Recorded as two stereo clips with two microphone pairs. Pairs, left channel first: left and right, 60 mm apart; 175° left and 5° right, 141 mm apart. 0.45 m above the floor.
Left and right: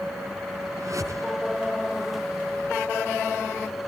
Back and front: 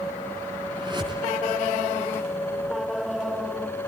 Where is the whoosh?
60° right, 5 m.